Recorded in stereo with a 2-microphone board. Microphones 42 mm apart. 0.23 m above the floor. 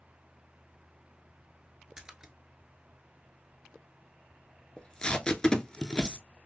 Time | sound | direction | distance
2.0 | a splash | 15° right (ahead or behind) | 0.6 m
4.8 | tape being pulled | 15° left (ahead or behind) | 0.5 m